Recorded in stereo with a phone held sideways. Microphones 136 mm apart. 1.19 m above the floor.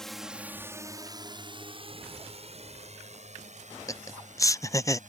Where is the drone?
5° left (ahead or behind); by 5.1 s 65° right (ahead or behind).